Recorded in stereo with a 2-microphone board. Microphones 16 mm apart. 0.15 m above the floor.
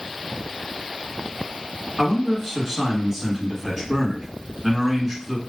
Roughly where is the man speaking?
Centre.